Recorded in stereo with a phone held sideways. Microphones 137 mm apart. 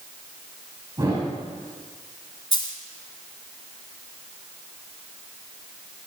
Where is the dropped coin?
35° left (ahead or behind), 1.3 m.